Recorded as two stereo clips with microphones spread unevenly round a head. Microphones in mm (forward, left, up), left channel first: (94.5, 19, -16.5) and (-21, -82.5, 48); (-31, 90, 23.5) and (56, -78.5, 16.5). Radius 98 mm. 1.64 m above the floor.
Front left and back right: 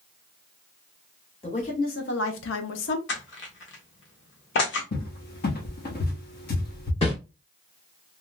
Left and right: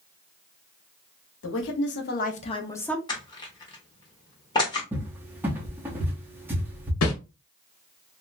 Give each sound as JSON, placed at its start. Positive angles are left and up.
{"t": 1.4, "sound": "a woman speaking", "azimuth_deg": 110, "distance_m": 0.8}
{"t": 3.1, "sound": "crushing", "azimuth_deg": 50, "distance_m": 1.1}
{"t": 4.9, "sound": "a cupboard door", "azimuth_deg": 15, "distance_m": 0.8}
{"t": 7.0, "sound": "a whoosh", "azimuth_deg": 110, "distance_m": 0.8}